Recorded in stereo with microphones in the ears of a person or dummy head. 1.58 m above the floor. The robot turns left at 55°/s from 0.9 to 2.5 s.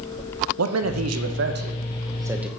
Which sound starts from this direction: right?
A man speaking, at 0.6 s.